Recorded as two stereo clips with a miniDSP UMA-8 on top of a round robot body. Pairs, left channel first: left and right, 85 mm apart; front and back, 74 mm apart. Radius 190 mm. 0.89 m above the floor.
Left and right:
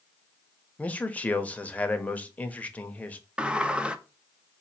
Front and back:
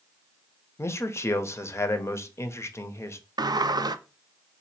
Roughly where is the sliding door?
Behind.